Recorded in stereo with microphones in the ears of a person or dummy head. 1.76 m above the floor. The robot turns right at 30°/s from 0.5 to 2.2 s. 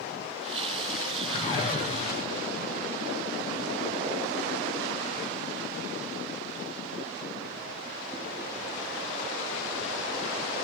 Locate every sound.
1.2 s a whoosh: 15° left (ahead or behind), 6 m; by 2.6 s 45° left (ahead or behind), 6 m